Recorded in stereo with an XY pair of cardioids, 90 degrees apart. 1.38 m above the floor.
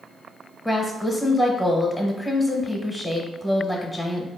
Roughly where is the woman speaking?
Ahead.